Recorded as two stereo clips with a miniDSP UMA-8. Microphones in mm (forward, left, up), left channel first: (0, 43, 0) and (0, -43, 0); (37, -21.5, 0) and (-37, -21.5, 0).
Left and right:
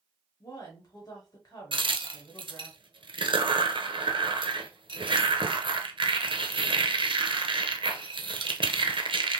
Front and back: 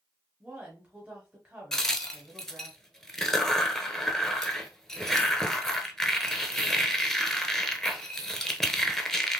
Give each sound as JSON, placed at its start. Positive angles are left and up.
{"t": 0.4, "sound": "a woman speaking", "azimuth_deg": 110, "distance_m": 1.4}
{"t": 1.7, "sound": "a crack", "azimuth_deg": -85, "distance_m": 0.6}